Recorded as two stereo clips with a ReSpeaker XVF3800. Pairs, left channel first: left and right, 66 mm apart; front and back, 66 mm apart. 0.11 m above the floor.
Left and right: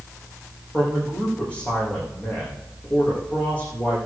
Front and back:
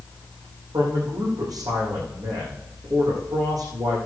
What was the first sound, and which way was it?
A man speaking, 160° left.